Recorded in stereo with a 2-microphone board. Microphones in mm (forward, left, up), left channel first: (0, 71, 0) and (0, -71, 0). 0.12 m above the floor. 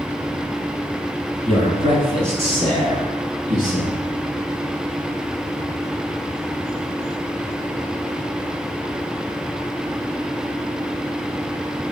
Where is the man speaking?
35° right (ahead or behind), 1.6 m; by 4.0 s 60° right (ahead or behind), 3.5 m.